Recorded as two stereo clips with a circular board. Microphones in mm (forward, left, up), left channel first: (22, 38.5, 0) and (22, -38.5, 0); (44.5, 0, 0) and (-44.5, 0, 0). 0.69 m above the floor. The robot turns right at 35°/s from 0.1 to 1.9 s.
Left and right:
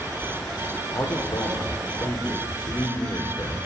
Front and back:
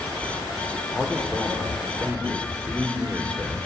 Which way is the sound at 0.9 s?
75° left.